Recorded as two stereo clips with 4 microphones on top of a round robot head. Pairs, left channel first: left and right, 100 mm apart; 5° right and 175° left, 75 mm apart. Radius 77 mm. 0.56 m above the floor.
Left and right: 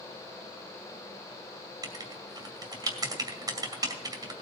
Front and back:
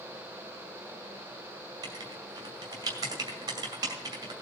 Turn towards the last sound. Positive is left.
turn(degrees=-140)